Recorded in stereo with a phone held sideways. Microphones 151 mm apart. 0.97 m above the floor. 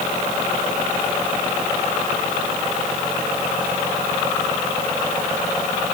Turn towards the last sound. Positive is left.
No sound to turn to.